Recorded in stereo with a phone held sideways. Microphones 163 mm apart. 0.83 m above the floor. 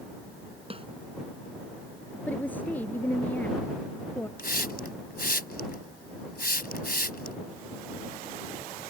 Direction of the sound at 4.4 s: 70° left (ahead or behind).